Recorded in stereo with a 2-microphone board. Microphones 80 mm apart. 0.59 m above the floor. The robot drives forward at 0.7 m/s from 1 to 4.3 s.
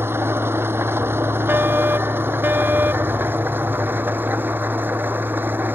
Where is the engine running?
30° right (ahead or behind); by 5.8 s 25° right (ahead or behind).